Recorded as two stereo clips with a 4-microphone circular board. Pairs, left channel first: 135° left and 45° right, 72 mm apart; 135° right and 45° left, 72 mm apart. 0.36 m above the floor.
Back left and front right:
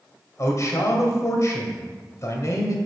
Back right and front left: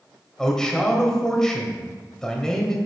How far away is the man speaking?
About 1.7 m.